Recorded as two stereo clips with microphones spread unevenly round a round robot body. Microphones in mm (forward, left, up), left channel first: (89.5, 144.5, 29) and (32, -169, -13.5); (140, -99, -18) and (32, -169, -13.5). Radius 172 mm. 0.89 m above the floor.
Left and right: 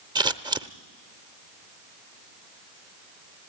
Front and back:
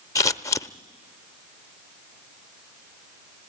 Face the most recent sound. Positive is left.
turn(degrees=-20)